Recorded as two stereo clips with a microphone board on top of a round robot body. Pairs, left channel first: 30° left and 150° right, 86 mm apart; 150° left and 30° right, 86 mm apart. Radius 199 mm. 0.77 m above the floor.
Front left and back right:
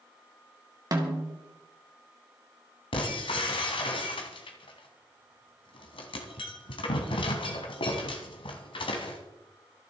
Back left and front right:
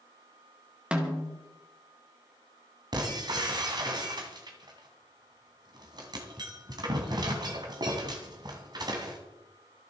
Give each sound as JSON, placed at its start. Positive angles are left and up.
{"t": 0.9, "sound": "a snare drum", "azimuth_deg": -105, "distance_m": 2.5}
{"t": 2.9, "sound": "breaking glass", "azimuth_deg": 10, "distance_m": 1.7}